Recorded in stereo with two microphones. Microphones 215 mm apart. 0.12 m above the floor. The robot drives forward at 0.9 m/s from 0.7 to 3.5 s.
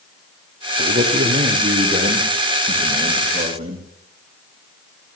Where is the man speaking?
40° right (ahead or behind), 5.5 m; by 3.9 s 30° right (ahead or behind), 7 m.